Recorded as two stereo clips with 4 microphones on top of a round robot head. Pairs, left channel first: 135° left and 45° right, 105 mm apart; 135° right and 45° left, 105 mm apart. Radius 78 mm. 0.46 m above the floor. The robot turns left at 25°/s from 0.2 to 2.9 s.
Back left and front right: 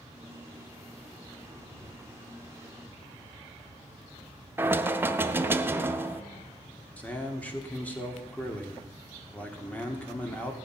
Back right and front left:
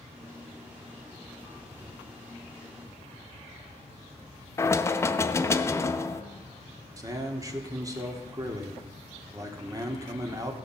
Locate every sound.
4.6 s knocking: 95° right, 0.7 m
7.0 s a man speaking: 65° left, 1.4 m